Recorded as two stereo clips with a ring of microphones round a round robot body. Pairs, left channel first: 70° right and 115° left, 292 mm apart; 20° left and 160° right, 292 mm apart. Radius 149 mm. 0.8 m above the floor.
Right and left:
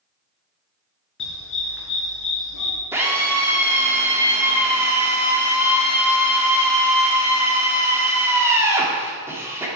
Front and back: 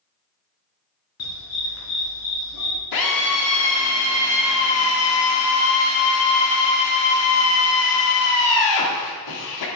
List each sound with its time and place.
1.2 s a dog barking: 20° right, 3.5 m
2.9 s a drill: 30° left, 1.9 m